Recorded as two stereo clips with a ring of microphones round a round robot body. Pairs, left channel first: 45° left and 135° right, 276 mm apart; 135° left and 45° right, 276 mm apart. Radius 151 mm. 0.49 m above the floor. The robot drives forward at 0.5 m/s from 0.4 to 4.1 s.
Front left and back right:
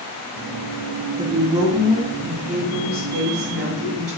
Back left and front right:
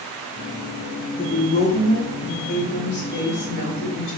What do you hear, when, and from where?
1.2 s a woman speaking: 170° left, 1.4 m; by 4.2 s 175° left, 2.5 m